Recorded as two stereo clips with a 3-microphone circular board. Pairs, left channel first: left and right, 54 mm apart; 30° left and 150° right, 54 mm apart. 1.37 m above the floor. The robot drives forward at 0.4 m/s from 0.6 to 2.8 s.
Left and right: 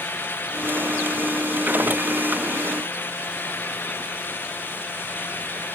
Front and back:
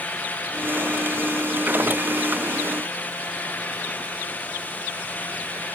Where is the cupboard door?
I don't hear a cupboard door.